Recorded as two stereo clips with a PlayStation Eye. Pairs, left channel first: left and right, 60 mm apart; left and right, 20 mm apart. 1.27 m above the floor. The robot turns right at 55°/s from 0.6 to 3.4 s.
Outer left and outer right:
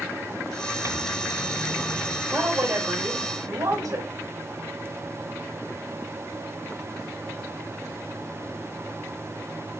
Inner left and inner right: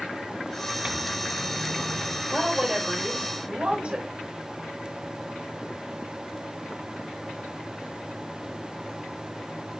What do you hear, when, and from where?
0.8 s a microwave: 60° right, 0.7 m; by 2.2 s 15° left, 0.7 m
2.3 s a woman speaking: 140° right, 5 m; by 4.1 s 80° right, 5 m